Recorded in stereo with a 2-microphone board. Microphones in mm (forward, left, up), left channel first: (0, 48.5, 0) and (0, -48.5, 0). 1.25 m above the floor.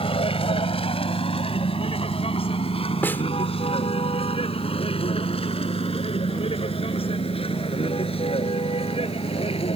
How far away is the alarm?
No alarm in this recording.